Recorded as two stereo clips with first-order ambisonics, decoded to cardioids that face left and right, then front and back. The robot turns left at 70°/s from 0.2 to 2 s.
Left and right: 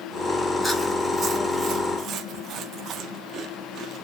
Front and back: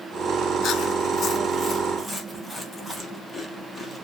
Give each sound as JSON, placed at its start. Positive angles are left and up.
{"t": 0.6, "sound": "chewing", "azimuth_deg": 10, "distance_m": 0.7}